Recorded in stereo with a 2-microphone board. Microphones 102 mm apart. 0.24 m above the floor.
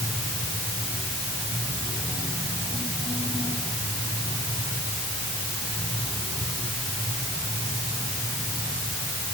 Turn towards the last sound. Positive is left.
No sound to turn to.